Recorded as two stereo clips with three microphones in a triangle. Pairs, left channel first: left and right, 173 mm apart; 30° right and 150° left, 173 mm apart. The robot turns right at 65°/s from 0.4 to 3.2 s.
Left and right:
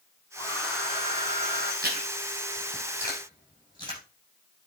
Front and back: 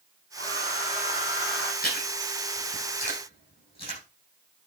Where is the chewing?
65° right, 8 m; by 4.0 s 25° left, 8 m.